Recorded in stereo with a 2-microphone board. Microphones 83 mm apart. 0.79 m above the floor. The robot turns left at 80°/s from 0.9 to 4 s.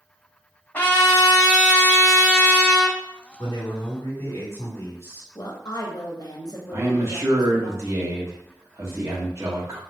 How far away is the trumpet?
About 1.3 m.